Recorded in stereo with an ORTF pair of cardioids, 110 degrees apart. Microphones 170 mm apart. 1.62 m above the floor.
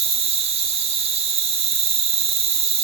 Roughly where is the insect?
Ahead right.